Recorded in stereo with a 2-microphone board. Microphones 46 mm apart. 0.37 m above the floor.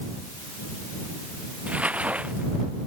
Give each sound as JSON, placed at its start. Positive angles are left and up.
{"t": 1.7, "sound": "crumpling", "side_deg": -30}